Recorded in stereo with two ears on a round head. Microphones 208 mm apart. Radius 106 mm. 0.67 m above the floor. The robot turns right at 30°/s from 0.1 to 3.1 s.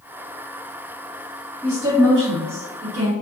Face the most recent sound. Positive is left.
turn(degrees=-125)